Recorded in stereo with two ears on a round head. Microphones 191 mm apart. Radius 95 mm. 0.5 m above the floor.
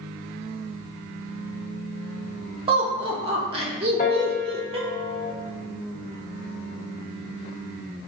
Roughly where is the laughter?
Right.